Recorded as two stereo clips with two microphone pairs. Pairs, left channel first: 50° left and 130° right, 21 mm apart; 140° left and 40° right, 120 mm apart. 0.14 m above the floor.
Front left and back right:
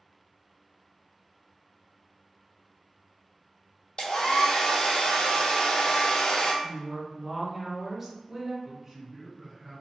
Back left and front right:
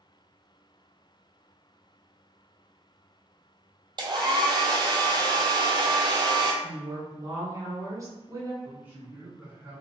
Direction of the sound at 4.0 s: 10° left.